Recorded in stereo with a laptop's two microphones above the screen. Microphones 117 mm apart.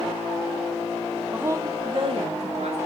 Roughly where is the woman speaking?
Centre.